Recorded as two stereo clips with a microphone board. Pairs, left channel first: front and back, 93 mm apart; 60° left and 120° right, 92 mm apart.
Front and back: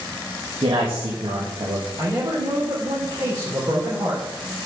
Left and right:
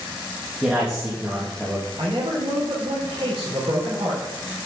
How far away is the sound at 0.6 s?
About 2.5 m.